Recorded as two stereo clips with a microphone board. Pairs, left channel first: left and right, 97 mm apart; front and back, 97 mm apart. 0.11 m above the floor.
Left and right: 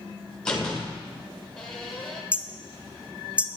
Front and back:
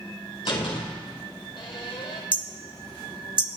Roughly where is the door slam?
Ahead.